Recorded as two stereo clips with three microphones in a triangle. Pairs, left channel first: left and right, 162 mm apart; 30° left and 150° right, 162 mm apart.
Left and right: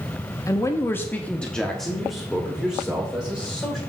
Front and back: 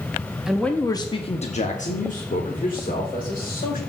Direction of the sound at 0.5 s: 130° left.